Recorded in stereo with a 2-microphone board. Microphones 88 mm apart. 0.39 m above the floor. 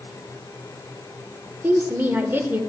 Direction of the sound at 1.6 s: 25° right (ahead or behind).